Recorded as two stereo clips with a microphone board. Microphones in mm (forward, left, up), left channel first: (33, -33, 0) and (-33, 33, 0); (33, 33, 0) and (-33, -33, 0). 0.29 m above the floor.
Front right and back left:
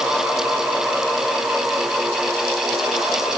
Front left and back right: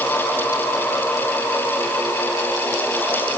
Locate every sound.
Only background noise.